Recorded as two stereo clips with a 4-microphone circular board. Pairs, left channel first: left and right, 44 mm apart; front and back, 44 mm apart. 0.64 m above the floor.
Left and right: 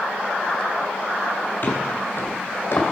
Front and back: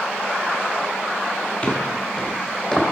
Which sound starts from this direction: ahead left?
Footsteps, at 1.6 s.